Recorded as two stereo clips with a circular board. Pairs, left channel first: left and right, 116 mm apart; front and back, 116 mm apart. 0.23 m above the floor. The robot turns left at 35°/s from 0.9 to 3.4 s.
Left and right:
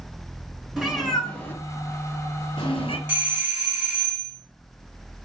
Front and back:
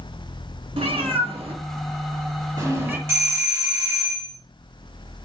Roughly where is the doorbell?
Behind right.